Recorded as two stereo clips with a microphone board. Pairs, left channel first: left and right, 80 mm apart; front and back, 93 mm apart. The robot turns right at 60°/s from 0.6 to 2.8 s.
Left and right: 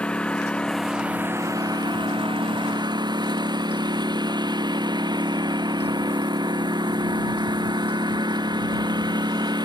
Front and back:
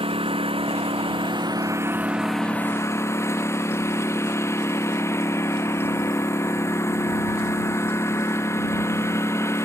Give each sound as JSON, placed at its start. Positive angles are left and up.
{"t": 0.0, "sound": "a lawn mower", "azimuth_deg": 170}